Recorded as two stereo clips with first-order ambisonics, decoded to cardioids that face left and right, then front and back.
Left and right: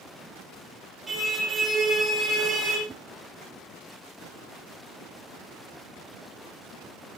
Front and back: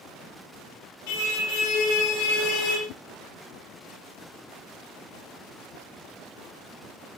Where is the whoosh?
10° right, 1.6 m.